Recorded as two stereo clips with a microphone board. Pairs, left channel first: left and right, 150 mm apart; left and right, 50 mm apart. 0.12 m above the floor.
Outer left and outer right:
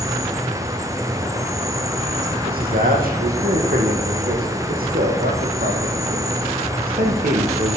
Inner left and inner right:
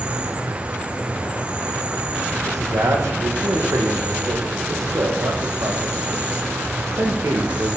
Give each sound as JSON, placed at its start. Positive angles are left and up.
{"t": 0.0, "sound": "an insect", "side_deg": -20, "distance_m": 1.6}
{"t": 2.5, "sound": "a man speaking", "side_deg": -80, "distance_m": 5.5}